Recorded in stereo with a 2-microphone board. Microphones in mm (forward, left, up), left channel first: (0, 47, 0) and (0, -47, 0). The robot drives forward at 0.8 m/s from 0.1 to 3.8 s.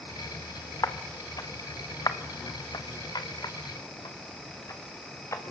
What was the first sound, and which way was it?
Footsteps, 35° left (ahead or behind).